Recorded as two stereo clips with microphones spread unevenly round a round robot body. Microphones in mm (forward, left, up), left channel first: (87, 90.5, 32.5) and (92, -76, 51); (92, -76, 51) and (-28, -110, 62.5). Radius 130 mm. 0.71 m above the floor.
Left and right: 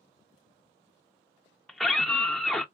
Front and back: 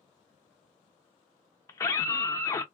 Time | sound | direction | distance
1.7 | a scream | 20° left | 0.5 m